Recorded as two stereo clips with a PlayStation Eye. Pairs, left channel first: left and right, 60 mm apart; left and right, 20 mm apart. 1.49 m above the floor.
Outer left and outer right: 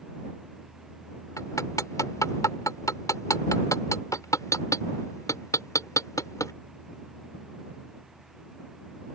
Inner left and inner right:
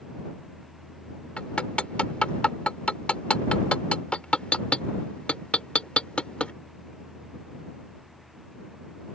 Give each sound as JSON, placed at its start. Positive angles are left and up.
{"t": 1.4, "sound": "hammering", "side_deg": 65}